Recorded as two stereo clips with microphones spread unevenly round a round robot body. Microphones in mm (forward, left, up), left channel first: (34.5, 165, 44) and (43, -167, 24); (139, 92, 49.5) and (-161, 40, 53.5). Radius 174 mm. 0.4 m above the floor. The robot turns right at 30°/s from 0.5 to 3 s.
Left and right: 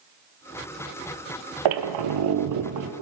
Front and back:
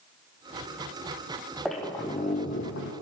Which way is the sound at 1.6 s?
80° right.